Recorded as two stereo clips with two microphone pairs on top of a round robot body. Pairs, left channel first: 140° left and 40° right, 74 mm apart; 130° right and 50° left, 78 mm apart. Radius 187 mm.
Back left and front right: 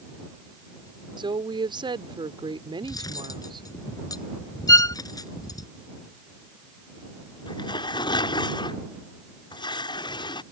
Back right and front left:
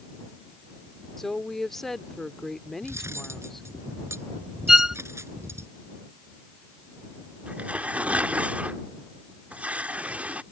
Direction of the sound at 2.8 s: 105° left.